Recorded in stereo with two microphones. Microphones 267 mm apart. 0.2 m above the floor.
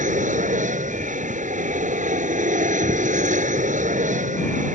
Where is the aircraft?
30° right (ahead or behind).